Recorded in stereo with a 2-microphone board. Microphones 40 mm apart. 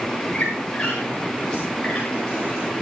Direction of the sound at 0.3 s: 25° left (ahead or behind).